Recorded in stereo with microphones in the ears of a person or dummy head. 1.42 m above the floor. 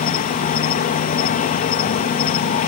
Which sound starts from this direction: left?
An insect, at 0.0 s.